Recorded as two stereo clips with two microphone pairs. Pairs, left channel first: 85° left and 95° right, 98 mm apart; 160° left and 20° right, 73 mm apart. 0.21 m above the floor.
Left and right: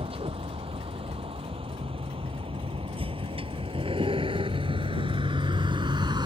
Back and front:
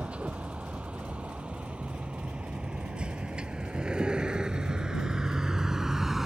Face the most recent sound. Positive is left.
turn(degrees=-105)